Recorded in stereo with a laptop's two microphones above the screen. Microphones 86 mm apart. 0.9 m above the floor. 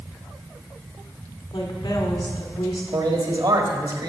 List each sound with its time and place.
1.5 s a woman speaking: 75° left (ahead or behind), 2.0 m
2.9 s a man speaking: 60° right (ahead or behind), 1.6 m